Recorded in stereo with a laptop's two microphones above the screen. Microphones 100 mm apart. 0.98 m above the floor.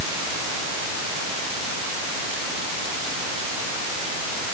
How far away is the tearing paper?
No tearing paper in this recording.